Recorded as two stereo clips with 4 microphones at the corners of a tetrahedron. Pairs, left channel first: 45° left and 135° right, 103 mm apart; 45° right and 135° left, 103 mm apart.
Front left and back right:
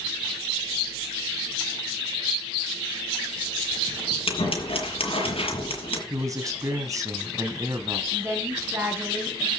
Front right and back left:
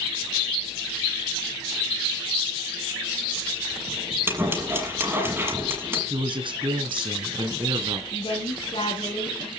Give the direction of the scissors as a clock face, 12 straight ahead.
10 o'clock.